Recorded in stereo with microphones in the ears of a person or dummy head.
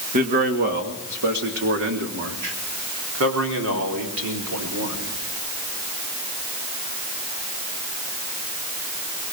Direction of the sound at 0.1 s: 45° right (ahead or behind).